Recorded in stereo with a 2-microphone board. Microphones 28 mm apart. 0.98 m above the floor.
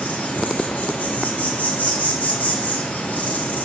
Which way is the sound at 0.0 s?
70° left (ahead or behind).